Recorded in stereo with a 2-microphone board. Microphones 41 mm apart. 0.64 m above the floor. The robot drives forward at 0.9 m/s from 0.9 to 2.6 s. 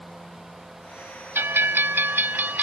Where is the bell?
75° right (ahead or behind); by 2.6 s 50° right (ahead or behind).